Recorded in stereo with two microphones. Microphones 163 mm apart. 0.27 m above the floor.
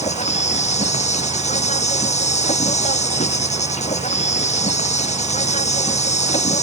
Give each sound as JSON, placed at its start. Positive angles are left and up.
{"t": 0.0, "sound": "an insect", "side_deg": 45}